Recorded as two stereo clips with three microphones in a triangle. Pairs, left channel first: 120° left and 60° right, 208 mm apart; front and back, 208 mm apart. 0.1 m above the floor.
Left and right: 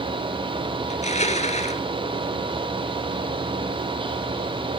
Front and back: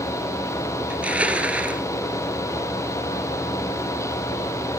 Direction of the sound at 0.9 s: 100° left.